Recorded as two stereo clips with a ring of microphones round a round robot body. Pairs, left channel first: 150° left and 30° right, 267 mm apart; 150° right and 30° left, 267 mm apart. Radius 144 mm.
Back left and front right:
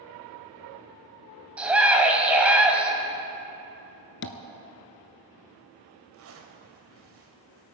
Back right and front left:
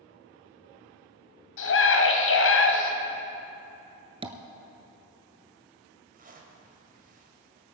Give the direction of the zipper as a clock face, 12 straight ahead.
1 o'clock.